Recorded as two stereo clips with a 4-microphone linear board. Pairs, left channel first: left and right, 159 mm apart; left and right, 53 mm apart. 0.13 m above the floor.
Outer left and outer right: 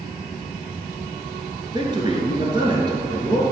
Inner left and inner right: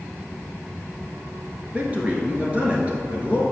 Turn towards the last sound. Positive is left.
turn(degrees=-30)  # may be behind; listen again after turning